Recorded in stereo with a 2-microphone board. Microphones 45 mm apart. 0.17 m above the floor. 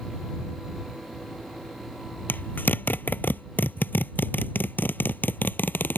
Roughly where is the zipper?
Left.